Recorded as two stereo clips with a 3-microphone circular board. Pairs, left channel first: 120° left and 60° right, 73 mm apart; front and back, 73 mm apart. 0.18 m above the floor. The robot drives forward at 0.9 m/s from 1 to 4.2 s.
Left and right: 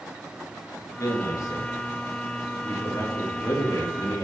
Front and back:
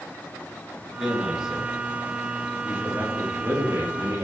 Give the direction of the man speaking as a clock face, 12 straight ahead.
9 o'clock.